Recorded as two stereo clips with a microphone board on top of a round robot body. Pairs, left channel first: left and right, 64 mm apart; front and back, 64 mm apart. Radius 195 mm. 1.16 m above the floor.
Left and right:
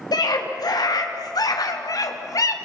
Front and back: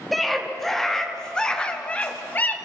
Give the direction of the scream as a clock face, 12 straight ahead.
9 o'clock.